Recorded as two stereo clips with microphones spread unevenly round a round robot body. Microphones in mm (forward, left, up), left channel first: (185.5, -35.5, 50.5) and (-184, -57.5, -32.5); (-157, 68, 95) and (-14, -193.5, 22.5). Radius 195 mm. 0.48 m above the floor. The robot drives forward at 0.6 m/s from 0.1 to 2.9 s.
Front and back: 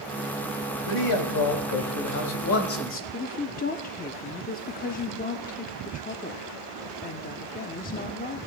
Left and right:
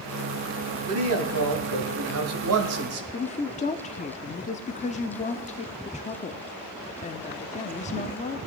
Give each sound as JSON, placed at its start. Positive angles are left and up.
{"t": 0.8, "sound": "a man speaking", "azimuth_deg": -30, "distance_m": 2.5}
{"t": 3.1, "sound": "a woman speaking", "azimuth_deg": 60, "distance_m": 0.7}